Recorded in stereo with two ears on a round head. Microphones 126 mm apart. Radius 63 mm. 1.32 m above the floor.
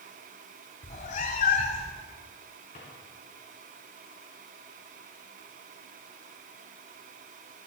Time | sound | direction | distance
0.8 | a cat meowing | 55° left (ahead or behind) | 1.8 m
2.7 | a drawer | 50° left (ahead or behind) | 7 m